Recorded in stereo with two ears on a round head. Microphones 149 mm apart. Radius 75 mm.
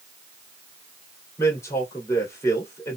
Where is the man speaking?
15° left (ahead or behind), 2 m.